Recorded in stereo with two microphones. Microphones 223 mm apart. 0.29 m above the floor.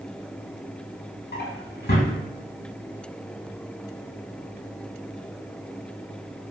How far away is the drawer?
About 0.7 m.